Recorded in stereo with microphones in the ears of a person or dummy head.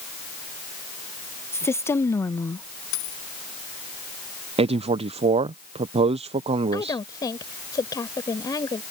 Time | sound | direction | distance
1.5 | a woman speaking | 15° left (ahead or behind) | ?
2.9 | a dropped coin | 70° left (ahead or behind) | ?
4.6 | a man speaking | 25° right (ahead or behind) | ?
6.7 | a woman speaking | 15° left (ahead or behind) | ?